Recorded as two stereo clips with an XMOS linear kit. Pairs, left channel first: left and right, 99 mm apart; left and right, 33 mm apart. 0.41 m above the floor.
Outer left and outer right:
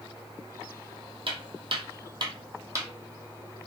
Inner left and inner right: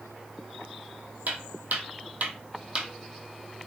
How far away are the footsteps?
About 0.8 m.